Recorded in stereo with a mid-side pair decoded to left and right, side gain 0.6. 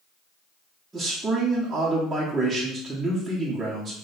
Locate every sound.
0.9 s a man speaking: 25° right, 1.4 m